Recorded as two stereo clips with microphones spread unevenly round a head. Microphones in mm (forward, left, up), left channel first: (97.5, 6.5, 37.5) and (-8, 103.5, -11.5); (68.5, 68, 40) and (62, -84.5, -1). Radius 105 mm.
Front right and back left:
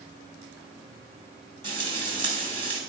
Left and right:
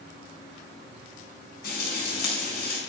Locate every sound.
1.6 s frying: 80° left, 5 m